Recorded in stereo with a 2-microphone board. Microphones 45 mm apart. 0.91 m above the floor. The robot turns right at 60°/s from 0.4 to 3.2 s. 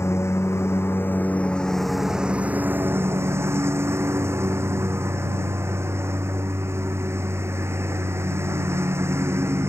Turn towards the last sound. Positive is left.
turn(degrees=-105)